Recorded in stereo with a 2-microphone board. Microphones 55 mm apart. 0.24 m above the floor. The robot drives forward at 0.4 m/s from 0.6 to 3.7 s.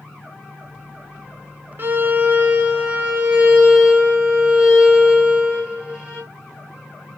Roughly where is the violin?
Right.